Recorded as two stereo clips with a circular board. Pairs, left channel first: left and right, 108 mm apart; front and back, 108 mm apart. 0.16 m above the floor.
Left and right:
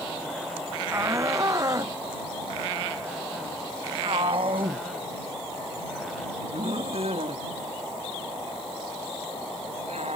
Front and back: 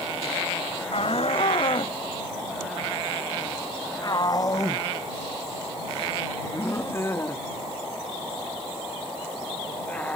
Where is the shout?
25° right; by 10.2 s 80° right.